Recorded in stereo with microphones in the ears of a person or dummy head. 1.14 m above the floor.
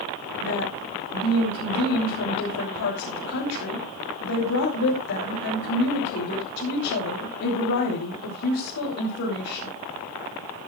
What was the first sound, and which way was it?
A woman speaking, 75° left (ahead or behind).